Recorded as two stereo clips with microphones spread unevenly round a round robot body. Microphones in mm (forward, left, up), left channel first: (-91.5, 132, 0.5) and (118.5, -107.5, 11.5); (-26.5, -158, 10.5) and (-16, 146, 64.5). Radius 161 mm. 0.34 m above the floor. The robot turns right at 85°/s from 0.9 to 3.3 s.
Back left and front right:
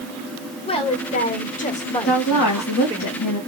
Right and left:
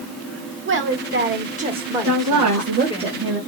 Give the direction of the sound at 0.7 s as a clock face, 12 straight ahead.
9 o'clock.